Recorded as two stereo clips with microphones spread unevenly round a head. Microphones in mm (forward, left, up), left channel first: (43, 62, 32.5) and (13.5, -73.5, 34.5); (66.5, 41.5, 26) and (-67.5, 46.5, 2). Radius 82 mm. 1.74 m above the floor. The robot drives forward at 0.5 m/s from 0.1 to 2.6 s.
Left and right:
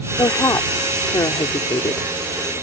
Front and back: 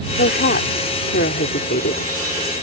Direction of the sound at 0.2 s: 5° left.